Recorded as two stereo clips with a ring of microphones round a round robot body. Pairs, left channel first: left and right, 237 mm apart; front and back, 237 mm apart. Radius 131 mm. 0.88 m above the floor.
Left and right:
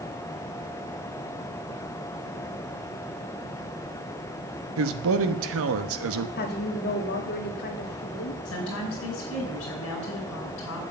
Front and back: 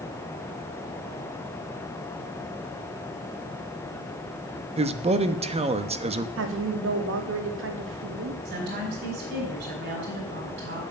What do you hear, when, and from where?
4.8 s a man speaking: 115° right, 1.1 m
6.4 s a woman speaking: 140° left, 1.7 m
8.4 s a woman speaking: 130° left, 5 m